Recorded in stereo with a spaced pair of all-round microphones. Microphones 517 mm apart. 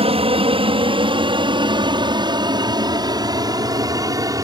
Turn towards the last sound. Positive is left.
turn(degrees=-5)  # may be behind; listen again after turning